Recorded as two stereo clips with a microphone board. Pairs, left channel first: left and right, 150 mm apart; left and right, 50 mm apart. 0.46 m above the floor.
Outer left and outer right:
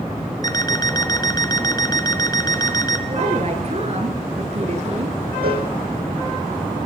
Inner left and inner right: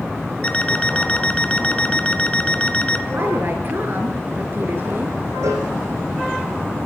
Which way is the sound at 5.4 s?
80° right.